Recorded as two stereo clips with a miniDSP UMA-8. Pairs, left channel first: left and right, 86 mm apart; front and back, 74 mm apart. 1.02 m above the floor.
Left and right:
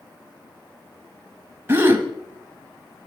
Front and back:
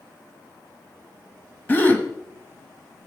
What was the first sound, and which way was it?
A gasp, 45° right.